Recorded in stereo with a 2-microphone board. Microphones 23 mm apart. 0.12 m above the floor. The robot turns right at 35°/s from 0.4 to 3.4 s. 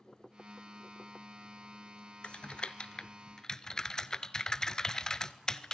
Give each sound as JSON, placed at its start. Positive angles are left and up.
{"t": 2.2, "sound": "typing on a keyboard", "side_deg": 50, "distance_m": 0.7}